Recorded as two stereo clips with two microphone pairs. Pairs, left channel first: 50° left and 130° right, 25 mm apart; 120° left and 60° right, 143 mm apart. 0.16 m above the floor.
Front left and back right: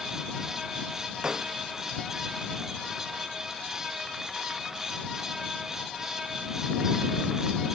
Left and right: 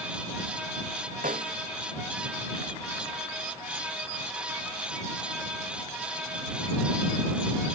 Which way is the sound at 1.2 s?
80° right.